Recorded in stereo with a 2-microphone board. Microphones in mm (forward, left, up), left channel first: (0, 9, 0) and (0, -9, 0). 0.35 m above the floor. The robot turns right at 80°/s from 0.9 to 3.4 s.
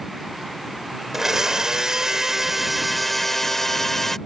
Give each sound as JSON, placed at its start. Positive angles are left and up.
{"t": 1.1, "sound": "a blender", "azimuth_deg": -145}